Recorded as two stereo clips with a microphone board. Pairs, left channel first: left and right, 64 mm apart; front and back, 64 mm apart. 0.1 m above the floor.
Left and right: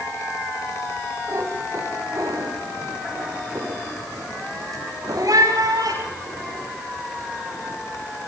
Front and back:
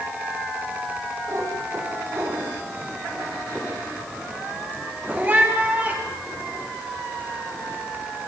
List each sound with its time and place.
1.3 s a cat meowing: 135° right, 8.5 m; by 6.7 s 110° right, 12 m